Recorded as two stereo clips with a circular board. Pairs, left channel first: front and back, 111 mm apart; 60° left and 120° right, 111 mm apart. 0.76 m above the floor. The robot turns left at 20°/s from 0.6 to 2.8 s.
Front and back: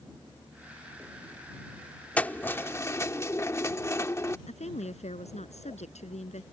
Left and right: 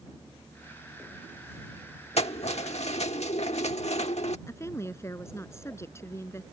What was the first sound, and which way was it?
Keys jangling, 75° left.